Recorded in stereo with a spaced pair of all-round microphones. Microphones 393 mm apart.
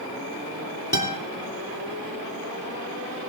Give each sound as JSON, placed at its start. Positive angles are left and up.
{"t": 0.9, "sound": "a guitar", "side_deg": 70, "distance_m": 3.0}